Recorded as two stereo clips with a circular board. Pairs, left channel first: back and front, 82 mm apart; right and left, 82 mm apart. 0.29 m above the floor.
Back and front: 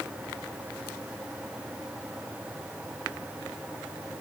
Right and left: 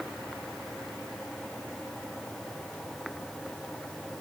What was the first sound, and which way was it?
Only background noise.